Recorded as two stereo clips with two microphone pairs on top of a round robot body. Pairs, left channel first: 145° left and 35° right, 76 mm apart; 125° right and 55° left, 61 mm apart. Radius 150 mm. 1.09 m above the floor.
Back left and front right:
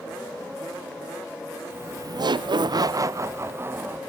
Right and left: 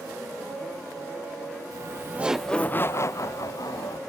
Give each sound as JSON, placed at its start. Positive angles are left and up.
{"t": 1.7, "sound": "laughter", "azimuth_deg": 25, "distance_m": 1.1}